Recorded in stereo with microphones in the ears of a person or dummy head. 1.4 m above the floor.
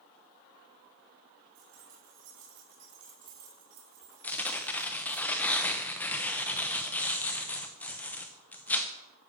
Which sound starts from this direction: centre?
Tearing paper, at 4.2 s.